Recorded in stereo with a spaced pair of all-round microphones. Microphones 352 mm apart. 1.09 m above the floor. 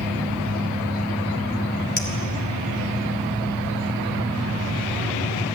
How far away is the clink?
About 2.5 m.